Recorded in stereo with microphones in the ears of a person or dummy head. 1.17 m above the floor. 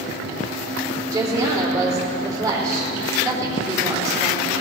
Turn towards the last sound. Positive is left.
turn(degrees=-20)  # may be behind; listen again after turning